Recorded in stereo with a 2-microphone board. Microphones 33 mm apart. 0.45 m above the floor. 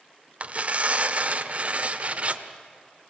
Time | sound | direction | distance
0.4 | tearing paper | 40° right (ahead or behind) | 1.2 m